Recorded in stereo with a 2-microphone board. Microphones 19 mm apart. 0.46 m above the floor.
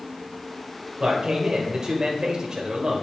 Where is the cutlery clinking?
No cutlery clinking in this recording.